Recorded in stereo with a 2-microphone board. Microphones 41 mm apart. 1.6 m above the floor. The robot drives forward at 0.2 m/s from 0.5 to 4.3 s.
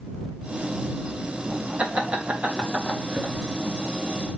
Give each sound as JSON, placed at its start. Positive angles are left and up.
{"t": 1.8, "sound": "laughter", "side_deg": -35, "distance_m": 1.2}